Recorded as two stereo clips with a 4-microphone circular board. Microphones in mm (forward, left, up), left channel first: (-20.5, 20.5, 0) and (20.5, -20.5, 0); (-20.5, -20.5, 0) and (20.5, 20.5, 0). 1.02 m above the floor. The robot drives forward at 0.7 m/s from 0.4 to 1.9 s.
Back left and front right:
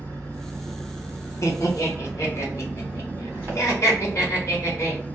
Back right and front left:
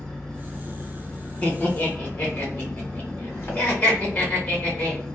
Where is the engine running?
55° right, 1.6 m; by 5.2 s 105° right, 1.4 m.